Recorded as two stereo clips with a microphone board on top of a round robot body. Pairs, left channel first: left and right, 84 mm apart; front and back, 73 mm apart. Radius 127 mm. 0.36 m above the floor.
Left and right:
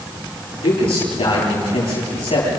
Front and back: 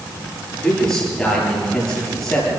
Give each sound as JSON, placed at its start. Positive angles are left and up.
{"t": 0.6, "sound": "a man speaking", "azimuth_deg": 80, "distance_m": 10.0}